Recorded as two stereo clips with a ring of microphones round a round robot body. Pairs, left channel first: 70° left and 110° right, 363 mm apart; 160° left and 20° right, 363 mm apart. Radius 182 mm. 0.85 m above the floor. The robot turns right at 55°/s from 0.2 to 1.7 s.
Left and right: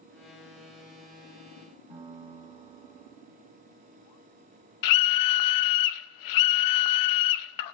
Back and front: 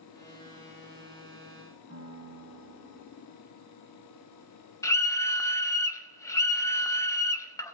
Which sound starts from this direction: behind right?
A piano, at 1.9 s.